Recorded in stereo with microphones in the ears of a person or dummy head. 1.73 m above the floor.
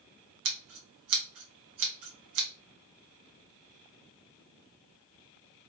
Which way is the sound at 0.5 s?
65° right (ahead or behind).